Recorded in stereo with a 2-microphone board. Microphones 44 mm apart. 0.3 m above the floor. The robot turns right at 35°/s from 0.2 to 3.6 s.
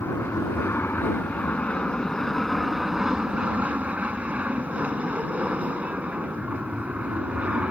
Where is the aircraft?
95° left; by 7.7 s 145° right.